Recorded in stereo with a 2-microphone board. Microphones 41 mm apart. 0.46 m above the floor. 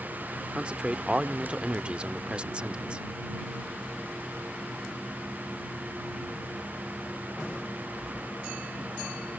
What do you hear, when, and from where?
0.6 s a man speaking: 30° right (ahead or behind)